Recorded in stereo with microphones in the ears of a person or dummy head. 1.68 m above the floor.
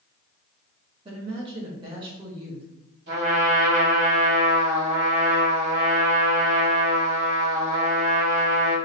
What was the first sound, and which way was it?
A woman speaking, 30° right (ahead or behind).